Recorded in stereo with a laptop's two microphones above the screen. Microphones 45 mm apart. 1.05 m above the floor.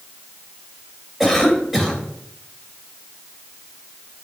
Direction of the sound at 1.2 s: 5° right (ahead or behind).